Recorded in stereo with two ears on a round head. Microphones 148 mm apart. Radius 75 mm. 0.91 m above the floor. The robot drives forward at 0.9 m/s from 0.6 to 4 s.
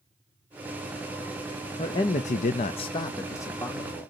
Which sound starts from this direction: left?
A man speaking, at 1.8 s.